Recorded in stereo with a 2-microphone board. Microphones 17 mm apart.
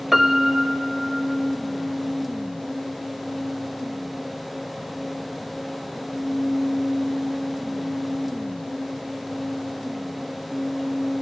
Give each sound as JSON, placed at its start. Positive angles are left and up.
{"t": 0.1, "sound": "a piano", "side_deg": -15, "distance_m": 0.9}